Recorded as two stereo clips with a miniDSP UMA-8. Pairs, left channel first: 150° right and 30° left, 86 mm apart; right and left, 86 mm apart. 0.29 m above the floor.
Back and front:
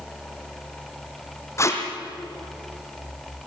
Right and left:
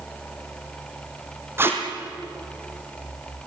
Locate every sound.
1.6 s tape being pulled: 155° left, 3 m